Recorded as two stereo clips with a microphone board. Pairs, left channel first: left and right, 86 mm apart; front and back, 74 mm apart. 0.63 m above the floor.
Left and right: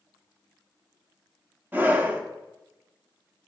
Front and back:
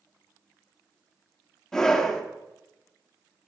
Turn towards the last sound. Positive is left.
turn(degrees=-70)